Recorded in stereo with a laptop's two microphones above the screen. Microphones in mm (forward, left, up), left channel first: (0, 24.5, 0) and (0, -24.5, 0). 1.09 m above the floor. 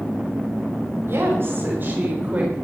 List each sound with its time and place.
1.1 s a woman speaking: 55° right (ahead or behind), 4 m; by 2.5 s 25° right (ahead or behind), 3 m